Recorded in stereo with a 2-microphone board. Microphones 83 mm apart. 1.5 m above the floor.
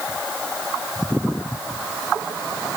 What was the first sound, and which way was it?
Only background noise.